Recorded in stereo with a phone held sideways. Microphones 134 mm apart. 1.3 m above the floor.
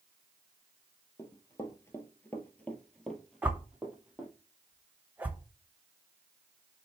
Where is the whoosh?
10° right (ahead or behind), 1.0 m.